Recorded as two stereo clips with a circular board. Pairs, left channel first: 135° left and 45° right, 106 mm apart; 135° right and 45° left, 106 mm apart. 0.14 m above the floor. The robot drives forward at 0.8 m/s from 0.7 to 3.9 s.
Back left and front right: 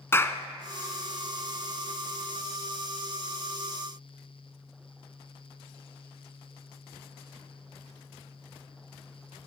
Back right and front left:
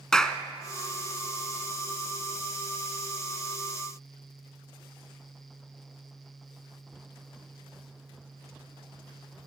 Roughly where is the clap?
Behind left.